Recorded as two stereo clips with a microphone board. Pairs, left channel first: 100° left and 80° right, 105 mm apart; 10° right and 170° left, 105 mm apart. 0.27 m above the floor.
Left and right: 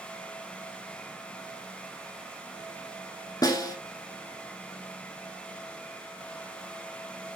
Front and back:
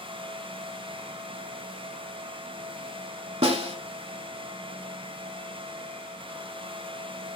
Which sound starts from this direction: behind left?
A snare drum, at 3.4 s.